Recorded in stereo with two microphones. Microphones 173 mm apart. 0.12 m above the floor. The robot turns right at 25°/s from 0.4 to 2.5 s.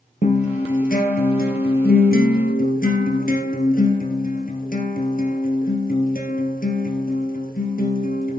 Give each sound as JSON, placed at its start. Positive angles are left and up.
{"t": 0.2, "sound": "a guitar", "azimuth_deg": 55, "distance_m": 2.5}